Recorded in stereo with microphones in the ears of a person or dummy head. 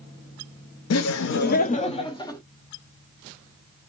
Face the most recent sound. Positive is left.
turn(degrees=20)  # may be behind; listen again after turning